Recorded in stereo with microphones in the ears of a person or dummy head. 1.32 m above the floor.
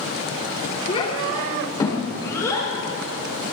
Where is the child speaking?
25° left (ahead or behind), 3 m; by 2.7 s 15° left (ahead or behind), 5.5 m.